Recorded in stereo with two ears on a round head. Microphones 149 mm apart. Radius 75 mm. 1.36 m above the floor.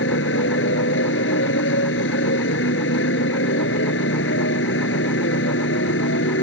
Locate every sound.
0.0 s a motorcycle: 85° left